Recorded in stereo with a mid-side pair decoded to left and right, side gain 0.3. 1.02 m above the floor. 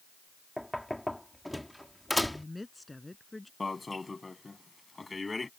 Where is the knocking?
5° left.